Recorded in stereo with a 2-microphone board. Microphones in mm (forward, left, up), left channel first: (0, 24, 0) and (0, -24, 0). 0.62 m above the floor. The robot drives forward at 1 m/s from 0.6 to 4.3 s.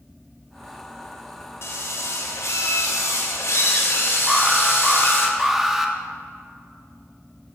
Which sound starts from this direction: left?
A drill, at 1.6 s.